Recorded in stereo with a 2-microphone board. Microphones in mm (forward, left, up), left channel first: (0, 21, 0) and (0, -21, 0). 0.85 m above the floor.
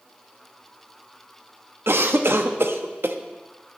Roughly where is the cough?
Right.